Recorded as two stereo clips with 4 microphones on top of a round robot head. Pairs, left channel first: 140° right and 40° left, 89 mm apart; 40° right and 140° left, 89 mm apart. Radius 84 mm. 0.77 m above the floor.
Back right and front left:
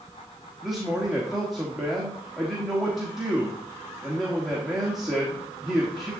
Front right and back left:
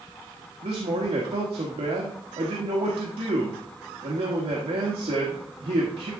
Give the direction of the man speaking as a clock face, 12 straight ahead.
8 o'clock.